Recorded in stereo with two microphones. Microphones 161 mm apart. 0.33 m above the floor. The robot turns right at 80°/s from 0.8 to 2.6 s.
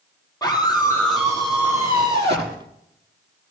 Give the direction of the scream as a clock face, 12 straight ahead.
7 o'clock.